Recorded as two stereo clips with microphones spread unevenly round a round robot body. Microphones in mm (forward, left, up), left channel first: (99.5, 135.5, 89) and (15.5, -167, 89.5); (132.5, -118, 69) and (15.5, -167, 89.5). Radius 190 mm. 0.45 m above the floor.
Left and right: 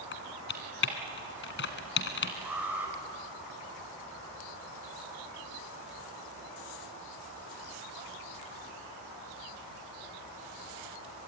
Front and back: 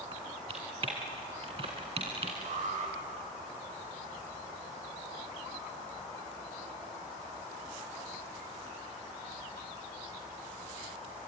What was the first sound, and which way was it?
Typing on a keyboard, 135° left.